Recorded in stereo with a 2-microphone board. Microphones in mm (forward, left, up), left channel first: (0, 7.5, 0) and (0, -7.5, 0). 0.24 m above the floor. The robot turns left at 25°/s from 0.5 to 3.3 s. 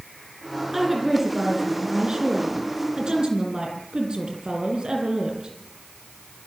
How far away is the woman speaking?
About 8.5 m.